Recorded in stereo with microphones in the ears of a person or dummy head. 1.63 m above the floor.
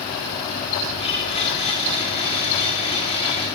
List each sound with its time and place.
1.0 s a blender: 35° left (ahead or behind), 5.5 m